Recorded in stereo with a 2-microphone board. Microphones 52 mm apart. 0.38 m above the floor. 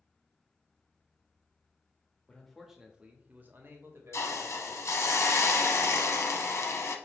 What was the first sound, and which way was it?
A man speaking, 15° left (ahead or behind).